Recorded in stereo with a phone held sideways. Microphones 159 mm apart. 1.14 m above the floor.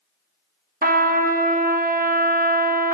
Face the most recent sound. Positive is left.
turn(degrees=-65)  # may be behind; listen again after turning